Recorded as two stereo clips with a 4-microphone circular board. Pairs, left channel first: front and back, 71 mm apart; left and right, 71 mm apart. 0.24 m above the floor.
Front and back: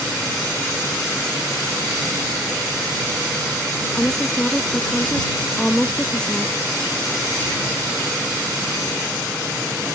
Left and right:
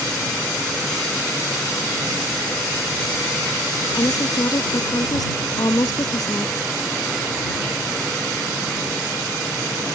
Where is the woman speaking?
75° left.